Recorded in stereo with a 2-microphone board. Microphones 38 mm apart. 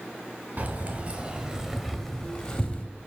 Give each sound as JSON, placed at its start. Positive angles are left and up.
{"t": 0.6, "sound": "keys jangling", "side_deg": -45, "distance_m": 1.2}